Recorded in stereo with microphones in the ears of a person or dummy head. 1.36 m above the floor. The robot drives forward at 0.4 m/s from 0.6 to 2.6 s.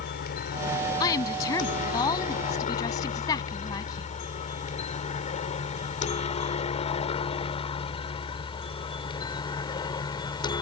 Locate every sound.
0.0 s a helicopter: 50° left (ahead or behind); by 10.6 s 25° left (ahead or behind)
1.0 s a woman speaking: 20° left (ahead or behind)